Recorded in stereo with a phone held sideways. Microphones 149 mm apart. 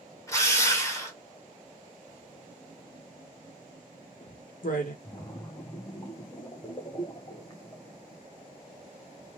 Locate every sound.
0.3 s a drill: 20° left (ahead or behind), 1.6 m
2.1 s writing: 65° left (ahead or behind), 1.0 m
5.0 s a splash: 25° left (ahead or behind), 0.9 m